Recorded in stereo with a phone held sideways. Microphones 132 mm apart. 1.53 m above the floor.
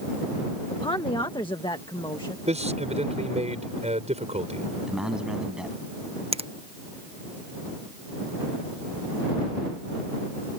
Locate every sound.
0.7 s a woman speaking: 35° left (ahead or behind); by 2.4 s 40° left (ahead or behind)
2.5 s a man speaking: 55° right (ahead or behind)
4.9 s a man speaking: 5° right (ahead or behind)
6.3 s a finger snap: 50° right (ahead or behind)